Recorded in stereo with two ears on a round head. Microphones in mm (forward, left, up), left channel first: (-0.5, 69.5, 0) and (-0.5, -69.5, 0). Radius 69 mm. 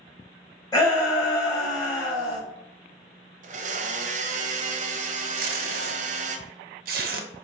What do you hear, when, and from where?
0.7 s a shout: 20° left (ahead or behind), 1.4 m
3.4 s a blender: 50° right (ahead or behind), 0.5 m
5.4 s tape being pulled: 60° right (ahead or behind), 0.7 m